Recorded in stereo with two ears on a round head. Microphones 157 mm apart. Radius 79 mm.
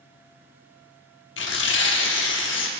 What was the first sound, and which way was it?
Tearing paper, 75° left (ahead or behind).